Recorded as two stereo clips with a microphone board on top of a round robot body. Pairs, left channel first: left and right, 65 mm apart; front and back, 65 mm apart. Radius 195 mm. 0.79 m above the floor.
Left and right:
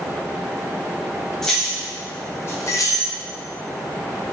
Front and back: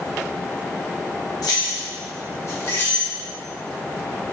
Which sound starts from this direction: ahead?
Keys jangling, at 1.4 s.